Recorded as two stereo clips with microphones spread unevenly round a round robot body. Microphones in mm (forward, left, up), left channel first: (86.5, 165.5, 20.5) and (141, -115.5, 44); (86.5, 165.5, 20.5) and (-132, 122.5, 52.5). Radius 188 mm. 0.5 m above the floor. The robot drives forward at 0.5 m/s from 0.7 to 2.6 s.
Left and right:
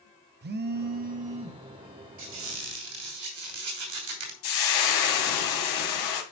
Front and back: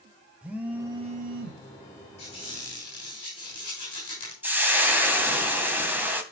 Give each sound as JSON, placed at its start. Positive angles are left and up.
{"t": 0.4, "sound": "a phone buzzing", "azimuth_deg": -75, "distance_m": 0.5}
{"t": 2.2, "sound": "a squeak", "azimuth_deg": -55, "distance_m": 3.0}
{"t": 4.4, "sound": "frying", "azimuth_deg": 110, "distance_m": 1.7}